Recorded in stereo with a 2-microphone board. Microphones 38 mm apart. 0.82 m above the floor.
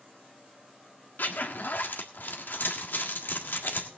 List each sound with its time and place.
1.2 s a zipper: 65° left (ahead or behind), 1.6 m